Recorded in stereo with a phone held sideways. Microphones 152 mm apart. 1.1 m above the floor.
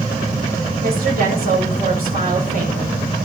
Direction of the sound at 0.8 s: 75° right (ahead or behind).